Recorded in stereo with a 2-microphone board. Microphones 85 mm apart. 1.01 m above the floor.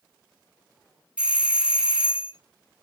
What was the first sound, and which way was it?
A doorbell, 15° right (ahead or behind).